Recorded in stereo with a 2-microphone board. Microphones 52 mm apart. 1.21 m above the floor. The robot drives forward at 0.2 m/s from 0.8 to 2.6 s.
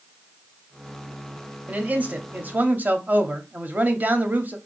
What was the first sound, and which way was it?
A man speaking, 30° right (ahead or behind).